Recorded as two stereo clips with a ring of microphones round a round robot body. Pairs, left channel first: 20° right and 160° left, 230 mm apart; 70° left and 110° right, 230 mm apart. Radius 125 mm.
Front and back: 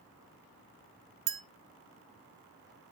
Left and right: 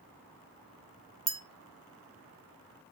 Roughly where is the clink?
Behind.